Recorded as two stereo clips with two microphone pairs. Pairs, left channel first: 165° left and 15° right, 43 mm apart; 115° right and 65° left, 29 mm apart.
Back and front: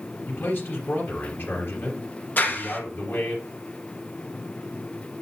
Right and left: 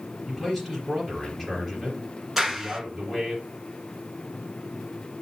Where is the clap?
145° left, 1.5 m.